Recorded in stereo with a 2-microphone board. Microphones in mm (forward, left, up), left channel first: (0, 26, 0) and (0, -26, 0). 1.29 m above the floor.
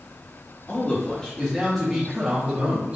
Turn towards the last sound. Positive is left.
turn(degrees=-15)  # may be behind; listen again after turning